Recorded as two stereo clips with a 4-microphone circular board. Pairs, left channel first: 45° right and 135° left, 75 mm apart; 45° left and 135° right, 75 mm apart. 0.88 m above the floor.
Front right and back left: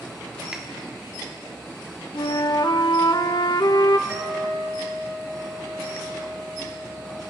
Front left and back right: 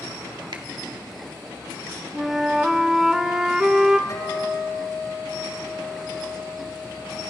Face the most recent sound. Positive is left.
turn(degrees=75)